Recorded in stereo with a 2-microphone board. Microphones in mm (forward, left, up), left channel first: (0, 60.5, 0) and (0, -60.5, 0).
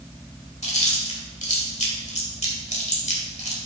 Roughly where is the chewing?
Left.